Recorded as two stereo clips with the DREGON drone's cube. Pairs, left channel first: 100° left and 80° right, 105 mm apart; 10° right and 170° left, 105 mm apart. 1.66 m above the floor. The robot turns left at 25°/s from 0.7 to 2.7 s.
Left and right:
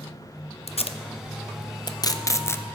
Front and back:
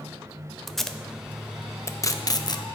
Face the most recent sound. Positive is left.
turn(degrees=30)